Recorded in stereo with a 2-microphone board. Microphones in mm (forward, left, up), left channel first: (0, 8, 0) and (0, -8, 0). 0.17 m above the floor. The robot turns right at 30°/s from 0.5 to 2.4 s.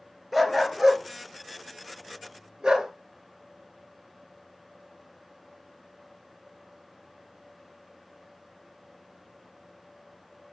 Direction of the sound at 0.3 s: 10° right (ahead or behind).